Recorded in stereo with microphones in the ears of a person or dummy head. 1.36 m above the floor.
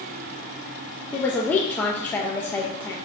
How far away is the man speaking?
About 1.2 m.